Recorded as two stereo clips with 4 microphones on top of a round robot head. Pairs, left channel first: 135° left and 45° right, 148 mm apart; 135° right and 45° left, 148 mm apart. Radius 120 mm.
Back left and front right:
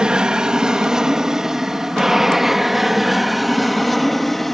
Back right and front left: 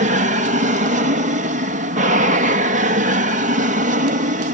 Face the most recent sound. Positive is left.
turn(degrees=45)